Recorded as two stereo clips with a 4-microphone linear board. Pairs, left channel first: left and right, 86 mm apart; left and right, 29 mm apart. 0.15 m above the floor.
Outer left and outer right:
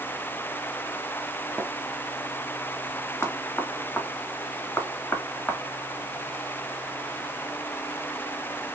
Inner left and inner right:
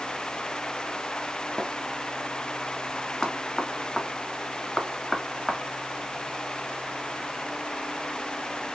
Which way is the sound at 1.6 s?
15° right (ahead or behind).